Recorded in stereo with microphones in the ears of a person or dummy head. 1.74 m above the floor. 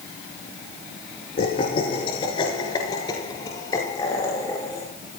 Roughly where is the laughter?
Left.